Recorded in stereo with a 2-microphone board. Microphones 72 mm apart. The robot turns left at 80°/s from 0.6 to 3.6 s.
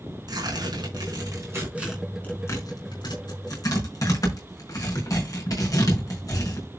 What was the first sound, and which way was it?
Tearing paper, 65° right (ahead or behind).